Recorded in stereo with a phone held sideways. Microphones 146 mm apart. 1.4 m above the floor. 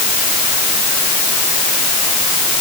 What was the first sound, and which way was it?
Only background noise.